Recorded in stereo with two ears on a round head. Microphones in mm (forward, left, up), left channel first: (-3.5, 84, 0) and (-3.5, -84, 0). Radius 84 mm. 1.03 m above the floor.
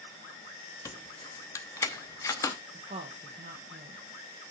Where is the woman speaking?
35° right (ahead or behind), 0.9 m.